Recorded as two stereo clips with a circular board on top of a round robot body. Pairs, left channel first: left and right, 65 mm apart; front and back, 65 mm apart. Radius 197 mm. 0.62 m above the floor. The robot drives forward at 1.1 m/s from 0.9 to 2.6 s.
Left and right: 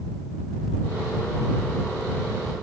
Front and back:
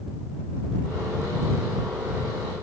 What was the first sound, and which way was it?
Only background noise.